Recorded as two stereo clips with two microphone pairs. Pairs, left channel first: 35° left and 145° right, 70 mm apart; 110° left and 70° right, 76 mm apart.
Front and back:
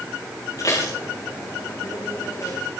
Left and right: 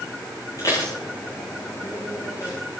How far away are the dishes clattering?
About 9 m.